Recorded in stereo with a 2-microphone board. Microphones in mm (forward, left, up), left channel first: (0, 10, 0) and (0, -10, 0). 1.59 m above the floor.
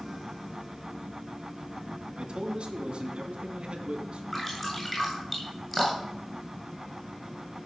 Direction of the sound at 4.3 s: 10° left (ahead or behind).